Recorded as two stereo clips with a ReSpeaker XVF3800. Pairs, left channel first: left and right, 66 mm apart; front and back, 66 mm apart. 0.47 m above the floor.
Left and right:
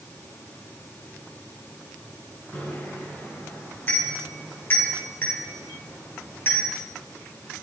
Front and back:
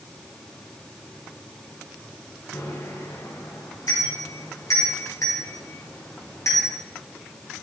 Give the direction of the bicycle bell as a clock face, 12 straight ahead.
11 o'clock.